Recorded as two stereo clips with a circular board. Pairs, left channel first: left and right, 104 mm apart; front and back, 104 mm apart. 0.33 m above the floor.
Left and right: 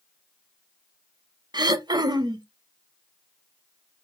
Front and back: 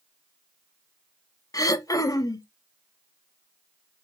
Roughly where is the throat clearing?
Ahead right.